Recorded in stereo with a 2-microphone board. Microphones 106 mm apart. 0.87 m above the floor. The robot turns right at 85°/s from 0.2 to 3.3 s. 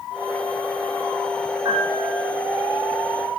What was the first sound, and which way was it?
A piano, 50° right.